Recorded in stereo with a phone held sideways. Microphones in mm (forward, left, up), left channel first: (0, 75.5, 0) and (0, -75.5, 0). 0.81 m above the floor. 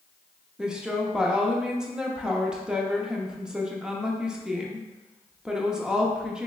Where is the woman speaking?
5° right (ahead or behind), 0.6 m.